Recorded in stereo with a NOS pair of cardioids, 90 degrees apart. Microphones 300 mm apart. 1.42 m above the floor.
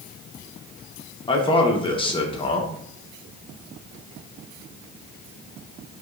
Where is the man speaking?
15° left, 1.0 m.